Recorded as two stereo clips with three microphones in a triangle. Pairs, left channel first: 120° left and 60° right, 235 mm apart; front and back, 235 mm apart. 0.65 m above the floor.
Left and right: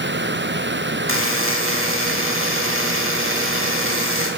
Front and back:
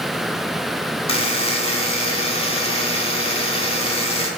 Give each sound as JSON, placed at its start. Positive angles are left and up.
{"t": 1.1, "sound": "a buzzer", "azimuth_deg": -60, "distance_m": 0.6}